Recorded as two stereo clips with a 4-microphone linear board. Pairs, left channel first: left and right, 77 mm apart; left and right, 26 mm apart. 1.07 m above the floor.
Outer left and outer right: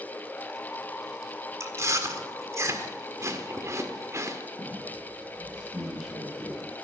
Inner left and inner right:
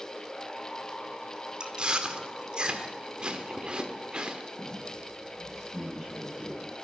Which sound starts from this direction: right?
Chewing, at 1.6 s.